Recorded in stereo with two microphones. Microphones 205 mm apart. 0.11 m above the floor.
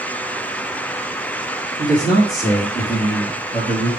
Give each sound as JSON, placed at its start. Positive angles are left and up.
{"t": 1.8, "sound": "a man speaking", "side_deg": 10, "distance_m": 3.0}